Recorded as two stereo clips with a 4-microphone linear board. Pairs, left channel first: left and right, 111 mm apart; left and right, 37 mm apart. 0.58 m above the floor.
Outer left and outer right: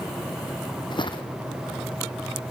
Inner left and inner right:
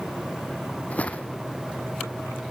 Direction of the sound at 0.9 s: 45° left (ahead or behind).